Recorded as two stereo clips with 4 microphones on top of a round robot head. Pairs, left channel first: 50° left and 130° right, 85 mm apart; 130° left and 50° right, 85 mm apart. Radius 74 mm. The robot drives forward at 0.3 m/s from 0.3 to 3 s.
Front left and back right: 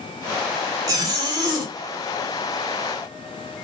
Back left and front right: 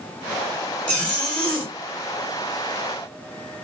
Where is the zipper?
155° right, 1.2 m; by 1.7 s 160° right, 1.4 m.